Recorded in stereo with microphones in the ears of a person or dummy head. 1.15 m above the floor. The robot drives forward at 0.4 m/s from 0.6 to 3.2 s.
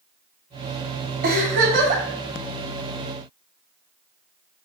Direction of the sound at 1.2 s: 50° right (ahead or behind).